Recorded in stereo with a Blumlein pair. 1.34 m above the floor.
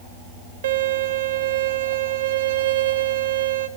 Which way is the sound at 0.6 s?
60° right.